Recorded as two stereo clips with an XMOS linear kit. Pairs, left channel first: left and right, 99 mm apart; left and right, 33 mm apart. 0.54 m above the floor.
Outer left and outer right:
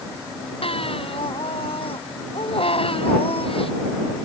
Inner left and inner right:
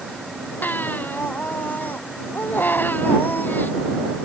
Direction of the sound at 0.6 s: 85° left.